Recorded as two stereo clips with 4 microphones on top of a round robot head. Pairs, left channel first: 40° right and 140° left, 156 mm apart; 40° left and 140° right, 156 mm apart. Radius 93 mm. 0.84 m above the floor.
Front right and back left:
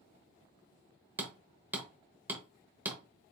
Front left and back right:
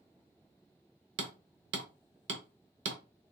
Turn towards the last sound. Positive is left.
turn(degrees=-145)